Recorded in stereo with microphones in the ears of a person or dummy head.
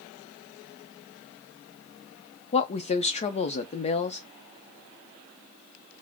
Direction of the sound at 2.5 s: 35° left (ahead or behind).